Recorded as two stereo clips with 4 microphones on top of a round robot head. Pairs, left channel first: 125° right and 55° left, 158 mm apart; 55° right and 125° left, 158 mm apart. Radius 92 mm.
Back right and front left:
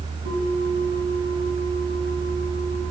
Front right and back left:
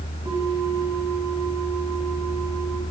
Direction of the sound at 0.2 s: 60° left.